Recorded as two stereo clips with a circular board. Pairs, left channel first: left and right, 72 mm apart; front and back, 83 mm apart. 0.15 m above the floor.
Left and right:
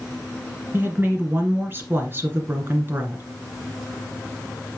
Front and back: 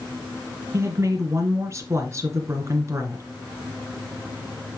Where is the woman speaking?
140° right, 2.5 m.